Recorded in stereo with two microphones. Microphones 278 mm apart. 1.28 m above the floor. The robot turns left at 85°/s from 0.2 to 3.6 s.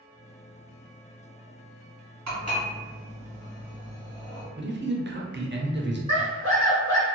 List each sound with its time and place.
2.3 s dishes clattering: 75° right (ahead or behind), 1.4 m; by 4.5 s 35° left (ahead or behind), 1.4 m
4.6 s a man speaking: 40° right (ahead or behind), 0.5 m
6.1 s a scream: 75° left (ahead or behind), 1.6 m